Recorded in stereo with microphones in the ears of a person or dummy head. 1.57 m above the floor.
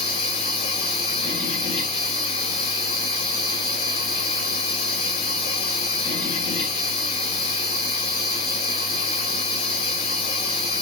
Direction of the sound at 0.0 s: 30° left (ahead or behind).